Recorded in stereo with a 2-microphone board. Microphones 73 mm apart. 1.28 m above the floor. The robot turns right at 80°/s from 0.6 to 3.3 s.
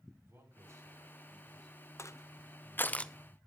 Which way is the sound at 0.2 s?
150° right.